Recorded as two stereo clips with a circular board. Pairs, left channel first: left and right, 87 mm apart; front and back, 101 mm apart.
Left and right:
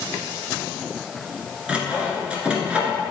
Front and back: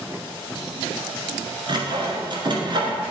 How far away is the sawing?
About 1.5 m.